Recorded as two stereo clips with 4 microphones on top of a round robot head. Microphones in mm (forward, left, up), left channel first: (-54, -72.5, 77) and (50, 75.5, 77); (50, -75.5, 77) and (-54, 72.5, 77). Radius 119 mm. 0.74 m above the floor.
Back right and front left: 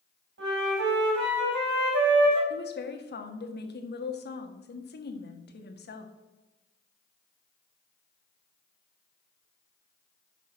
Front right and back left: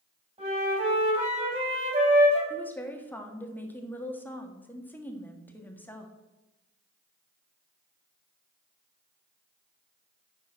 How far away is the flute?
About 5 m.